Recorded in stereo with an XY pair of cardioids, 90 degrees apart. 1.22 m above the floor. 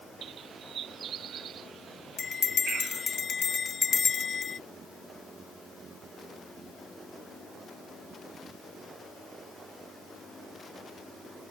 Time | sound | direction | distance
0.2 | a bird | 65° right | ?
2.2 | a bell | 50° left | ?